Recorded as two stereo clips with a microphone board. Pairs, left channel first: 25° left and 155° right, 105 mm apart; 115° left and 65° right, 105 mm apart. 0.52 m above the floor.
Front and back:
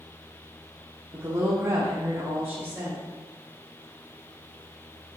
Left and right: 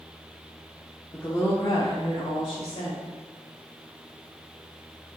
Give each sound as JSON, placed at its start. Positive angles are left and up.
{"t": 1.1, "sound": "a woman speaking", "azimuth_deg": 170, "distance_m": 1.3}